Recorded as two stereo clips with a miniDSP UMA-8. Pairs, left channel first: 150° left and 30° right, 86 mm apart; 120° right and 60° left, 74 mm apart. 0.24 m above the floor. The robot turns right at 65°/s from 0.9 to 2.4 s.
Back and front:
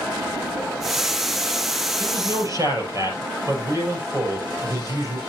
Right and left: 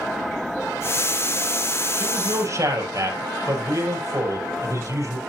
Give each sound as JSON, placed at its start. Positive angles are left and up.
{"t": 2.0, "sound": "a man speaking", "azimuth_deg": -10, "distance_m": 5.5}